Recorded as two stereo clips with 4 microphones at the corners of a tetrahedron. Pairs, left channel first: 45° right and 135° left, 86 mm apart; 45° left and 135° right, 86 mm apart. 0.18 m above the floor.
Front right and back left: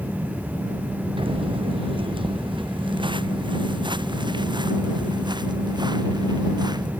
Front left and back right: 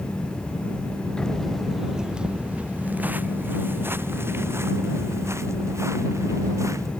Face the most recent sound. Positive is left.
turn(degrees=170)